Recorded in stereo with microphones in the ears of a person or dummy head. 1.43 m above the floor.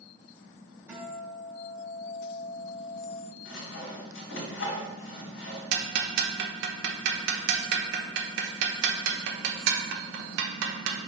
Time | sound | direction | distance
0.9 | a guitar | 15° right (ahead or behind) | 2.5 m
3.5 | sawing | 70° left (ahead or behind) | 3 m
5.7 | ticking | 60° right (ahead or behind) | 1.0 m